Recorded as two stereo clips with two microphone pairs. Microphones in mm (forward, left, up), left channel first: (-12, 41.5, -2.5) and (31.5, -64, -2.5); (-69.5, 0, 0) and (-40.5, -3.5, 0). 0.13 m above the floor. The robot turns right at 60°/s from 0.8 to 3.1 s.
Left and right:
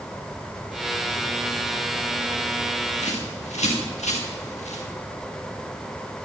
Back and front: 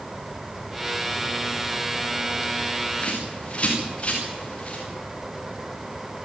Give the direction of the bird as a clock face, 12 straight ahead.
8 o'clock.